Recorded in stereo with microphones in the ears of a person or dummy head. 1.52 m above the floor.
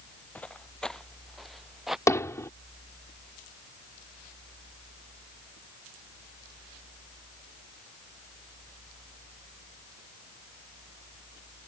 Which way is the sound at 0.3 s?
5° left (ahead or behind).